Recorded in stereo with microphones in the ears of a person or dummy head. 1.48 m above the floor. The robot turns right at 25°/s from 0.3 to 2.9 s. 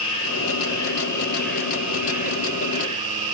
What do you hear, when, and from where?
0.0 s an insect: 150° left, 3.5 m; by 3.4 s 145° right, 3.5 m